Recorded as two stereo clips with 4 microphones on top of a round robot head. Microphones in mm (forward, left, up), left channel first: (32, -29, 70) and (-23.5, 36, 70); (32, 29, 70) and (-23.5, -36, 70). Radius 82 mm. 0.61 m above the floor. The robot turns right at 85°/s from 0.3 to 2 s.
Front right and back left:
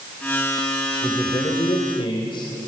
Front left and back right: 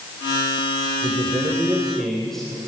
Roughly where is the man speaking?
Behind right.